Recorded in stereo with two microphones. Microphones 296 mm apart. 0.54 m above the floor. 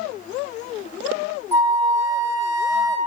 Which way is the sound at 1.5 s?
10° right (ahead or behind).